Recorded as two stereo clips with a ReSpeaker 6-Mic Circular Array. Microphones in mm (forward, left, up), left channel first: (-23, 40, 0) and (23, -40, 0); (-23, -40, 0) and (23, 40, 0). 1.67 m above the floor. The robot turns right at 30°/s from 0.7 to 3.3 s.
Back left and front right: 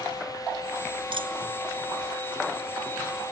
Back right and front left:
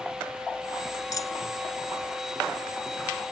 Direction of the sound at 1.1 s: 75° right.